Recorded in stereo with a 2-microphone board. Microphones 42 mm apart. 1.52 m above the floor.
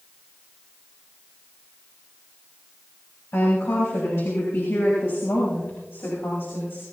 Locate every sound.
3.3 s a woman speaking: 80° left, 9 m; by 6.8 s 70° left (ahead or behind), 10 m